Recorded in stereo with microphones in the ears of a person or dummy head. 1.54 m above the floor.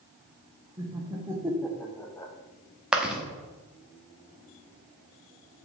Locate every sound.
0.8 s laughter: 15° right (ahead or behind), 1.6 m; by 2.3 s 15° left (ahead or behind), 1.1 m
2.9 s chewing: 5° right (ahead or behind), 1.1 m